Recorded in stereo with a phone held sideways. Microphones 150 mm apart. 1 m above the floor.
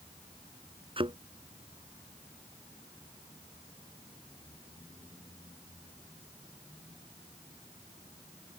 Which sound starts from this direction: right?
A thud, at 1.0 s.